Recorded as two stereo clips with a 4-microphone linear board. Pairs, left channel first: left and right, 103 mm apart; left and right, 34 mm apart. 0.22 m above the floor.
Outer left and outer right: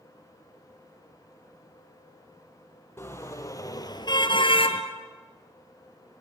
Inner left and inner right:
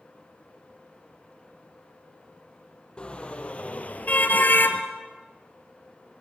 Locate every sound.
3.0 s a car horn: 25° left (ahead or behind), 3 m; by 4.8 s 70° left (ahead or behind), 1.9 m